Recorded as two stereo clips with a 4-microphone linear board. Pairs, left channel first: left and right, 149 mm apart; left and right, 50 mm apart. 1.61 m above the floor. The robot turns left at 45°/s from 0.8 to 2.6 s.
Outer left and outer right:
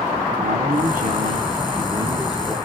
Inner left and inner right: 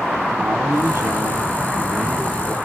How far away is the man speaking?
About 2 m.